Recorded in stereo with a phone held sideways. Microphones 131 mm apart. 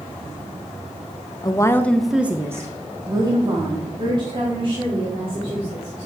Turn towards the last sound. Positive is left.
turn(degrees=-45)  # may be behind; listen again after turning